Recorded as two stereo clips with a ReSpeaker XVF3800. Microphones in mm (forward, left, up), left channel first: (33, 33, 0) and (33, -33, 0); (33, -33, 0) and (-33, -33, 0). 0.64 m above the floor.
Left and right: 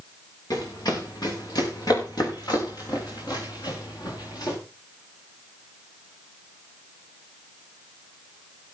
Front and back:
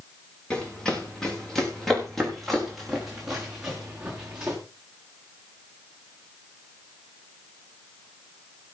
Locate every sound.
0.5 s running footsteps: 80° left, 5.5 m; by 4.6 s 105° left, 5 m